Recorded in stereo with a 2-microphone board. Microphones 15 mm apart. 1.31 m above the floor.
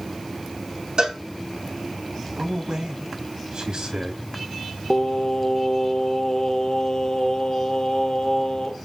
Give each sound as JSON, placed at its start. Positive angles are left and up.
{"t": 1.0, "sound": "a cowbell", "side_deg": -70, "distance_m": 4.0}
{"t": 2.4, "sound": "a man speaking", "side_deg": -70, "distance_m": 3.0}
{"t": 4.9, "sound": "singing", "side_deg": 65, "distance_m": 1.1}